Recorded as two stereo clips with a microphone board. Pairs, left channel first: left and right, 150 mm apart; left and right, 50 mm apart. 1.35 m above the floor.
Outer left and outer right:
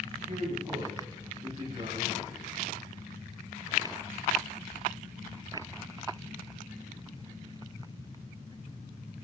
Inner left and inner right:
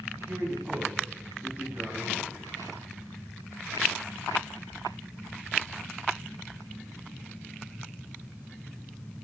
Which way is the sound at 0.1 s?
50° right (ahead or behind).